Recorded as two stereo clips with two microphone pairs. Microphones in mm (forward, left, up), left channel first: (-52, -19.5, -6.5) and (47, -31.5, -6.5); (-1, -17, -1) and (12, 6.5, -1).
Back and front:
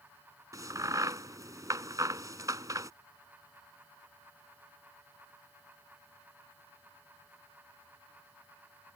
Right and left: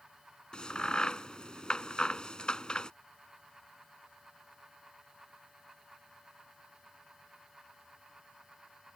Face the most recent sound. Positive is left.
turn(degrees=-60)